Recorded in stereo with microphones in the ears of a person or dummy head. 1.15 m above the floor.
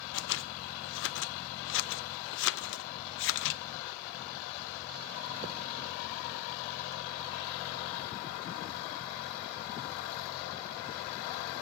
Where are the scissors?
70° left (ahead or behind), 1.0 m.